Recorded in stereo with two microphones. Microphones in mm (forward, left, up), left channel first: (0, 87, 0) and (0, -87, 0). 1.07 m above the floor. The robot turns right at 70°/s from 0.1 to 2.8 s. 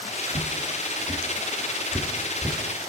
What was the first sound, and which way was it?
Footsteps, 55° right (ahead or behind).